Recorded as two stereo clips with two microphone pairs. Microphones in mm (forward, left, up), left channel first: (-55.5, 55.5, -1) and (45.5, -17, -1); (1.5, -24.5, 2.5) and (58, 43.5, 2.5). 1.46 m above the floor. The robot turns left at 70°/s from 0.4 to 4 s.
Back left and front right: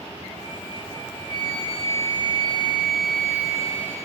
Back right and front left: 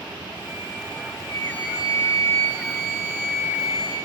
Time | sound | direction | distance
1.3 | a flute | 70° right | 7.5 m